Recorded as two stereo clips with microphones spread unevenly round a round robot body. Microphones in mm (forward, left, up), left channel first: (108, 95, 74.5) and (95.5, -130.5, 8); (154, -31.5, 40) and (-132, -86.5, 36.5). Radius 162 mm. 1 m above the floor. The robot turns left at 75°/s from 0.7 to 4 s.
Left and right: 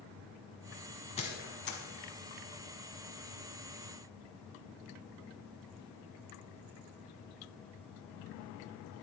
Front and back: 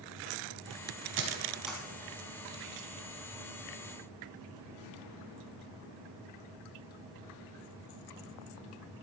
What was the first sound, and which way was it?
A squeak, 140° left.